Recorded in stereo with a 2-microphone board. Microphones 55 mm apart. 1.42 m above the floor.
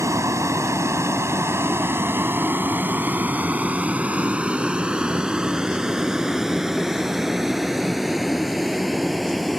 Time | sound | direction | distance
0.0 | a vehicle | 75° right (ahead or behind) | ?